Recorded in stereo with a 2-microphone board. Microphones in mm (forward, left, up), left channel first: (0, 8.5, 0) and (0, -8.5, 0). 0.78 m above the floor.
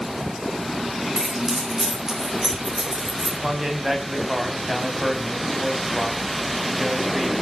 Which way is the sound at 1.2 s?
40° right (ahead or behind).